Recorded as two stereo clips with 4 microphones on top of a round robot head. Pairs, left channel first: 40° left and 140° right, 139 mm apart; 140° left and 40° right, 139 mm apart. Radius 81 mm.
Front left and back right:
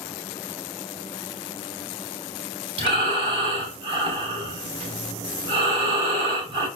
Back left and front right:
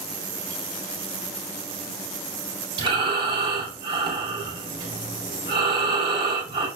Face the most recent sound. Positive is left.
turn(degrees=-95)